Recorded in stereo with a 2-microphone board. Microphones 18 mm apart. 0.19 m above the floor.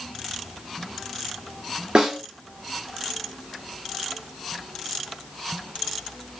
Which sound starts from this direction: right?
A snare drum, at 1.9 s.